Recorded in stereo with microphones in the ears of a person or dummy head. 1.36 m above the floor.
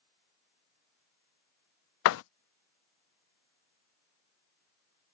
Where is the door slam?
70° left (ahead or behind).